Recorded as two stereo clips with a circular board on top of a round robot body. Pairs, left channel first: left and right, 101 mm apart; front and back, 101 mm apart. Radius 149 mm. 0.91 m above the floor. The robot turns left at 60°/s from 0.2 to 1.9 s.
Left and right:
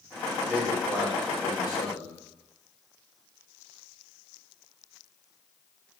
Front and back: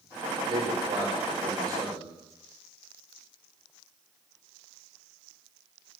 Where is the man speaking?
150° right, 4 m; by 2.1 s 125° left, 4 m.